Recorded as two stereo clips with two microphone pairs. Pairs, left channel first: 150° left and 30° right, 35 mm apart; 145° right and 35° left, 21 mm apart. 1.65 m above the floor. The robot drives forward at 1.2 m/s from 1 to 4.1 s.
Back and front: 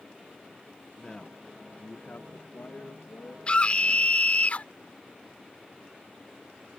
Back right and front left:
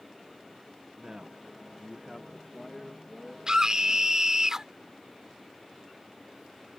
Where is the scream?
90° left; by 4.7 s 100° left.